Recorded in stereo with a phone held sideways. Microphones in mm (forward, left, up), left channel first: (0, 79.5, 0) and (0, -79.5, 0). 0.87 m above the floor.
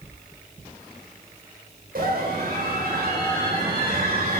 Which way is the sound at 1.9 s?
75° right (ahead or behind).